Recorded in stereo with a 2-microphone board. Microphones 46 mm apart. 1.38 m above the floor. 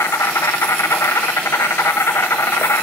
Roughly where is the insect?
Left.